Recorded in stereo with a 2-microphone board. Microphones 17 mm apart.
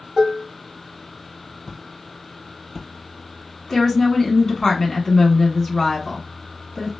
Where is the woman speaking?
40° left (ahead or behind), 1.6 m.